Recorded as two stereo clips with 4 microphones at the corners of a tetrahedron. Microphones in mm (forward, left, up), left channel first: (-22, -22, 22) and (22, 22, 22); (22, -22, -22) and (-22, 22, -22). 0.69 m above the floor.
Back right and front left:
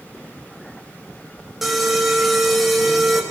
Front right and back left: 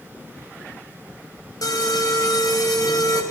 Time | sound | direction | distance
1.6 | an alarm | 45° right | 4 m